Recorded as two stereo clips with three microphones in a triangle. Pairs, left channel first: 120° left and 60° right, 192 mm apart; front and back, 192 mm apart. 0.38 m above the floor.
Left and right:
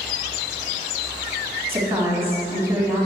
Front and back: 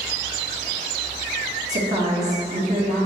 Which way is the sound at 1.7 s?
135° right.